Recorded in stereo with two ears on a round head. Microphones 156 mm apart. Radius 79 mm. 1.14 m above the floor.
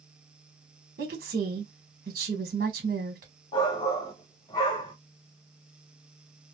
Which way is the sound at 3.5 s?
25° left (ahead or behind).